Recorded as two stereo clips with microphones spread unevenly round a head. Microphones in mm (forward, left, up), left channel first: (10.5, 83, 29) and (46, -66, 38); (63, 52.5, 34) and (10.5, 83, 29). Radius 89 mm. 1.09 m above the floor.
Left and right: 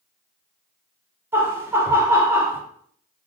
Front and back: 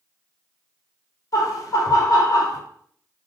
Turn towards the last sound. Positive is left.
turn(degrees=0)